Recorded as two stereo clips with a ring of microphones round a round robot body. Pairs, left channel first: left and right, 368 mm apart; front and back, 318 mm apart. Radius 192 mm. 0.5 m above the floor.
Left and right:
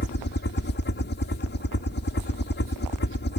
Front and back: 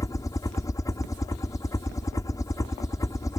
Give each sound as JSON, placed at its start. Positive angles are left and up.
{"t": 0.0, "sound": "a helicopter", "azimuth_deg": 70}